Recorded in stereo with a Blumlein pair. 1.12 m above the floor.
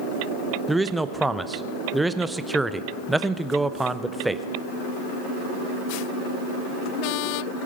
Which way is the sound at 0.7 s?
5° right.